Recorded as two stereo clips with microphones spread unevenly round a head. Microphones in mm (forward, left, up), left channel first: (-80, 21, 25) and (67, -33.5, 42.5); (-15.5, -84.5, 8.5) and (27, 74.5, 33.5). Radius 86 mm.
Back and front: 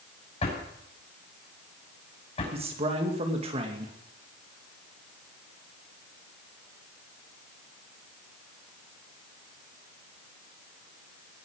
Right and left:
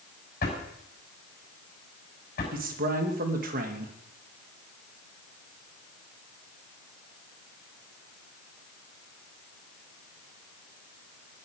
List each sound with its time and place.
0.4 s a drawer: 150° right, 6 m
2.5 s a man speaking: 35° left, 2.5 m